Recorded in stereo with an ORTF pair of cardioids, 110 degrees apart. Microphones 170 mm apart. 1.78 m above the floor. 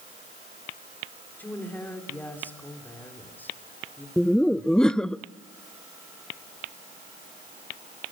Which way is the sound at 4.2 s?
5° left.